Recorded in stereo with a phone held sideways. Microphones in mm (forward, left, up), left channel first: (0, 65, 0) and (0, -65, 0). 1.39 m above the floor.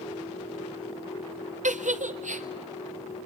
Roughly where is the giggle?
Right.